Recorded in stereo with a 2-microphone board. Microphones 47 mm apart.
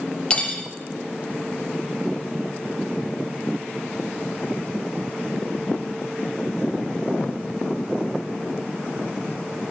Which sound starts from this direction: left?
Cutlery clinking, at 0.3 s.